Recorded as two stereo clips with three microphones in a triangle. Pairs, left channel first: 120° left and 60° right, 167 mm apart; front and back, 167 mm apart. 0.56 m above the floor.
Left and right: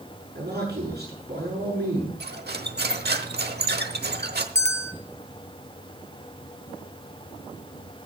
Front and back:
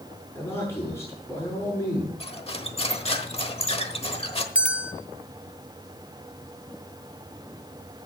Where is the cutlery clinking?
50° right, 1.0 m.